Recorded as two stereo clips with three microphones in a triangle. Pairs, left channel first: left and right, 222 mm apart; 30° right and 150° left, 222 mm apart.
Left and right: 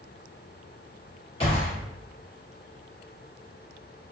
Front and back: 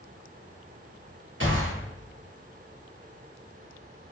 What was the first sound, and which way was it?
A gunshot, 150° left.